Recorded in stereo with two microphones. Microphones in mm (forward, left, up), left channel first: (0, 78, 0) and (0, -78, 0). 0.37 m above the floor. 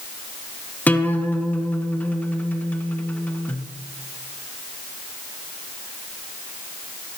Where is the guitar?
10° left (ahead or behind), 1.3 m.